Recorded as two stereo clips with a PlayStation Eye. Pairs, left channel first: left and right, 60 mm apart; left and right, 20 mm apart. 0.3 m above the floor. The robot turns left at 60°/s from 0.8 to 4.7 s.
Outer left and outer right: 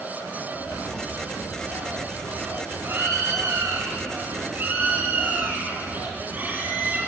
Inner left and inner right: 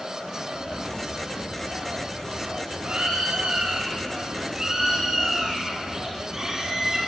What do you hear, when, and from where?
0.5 s a bird: 85° left, 6.5 m; by 7.0 s 150° right, 6.5 m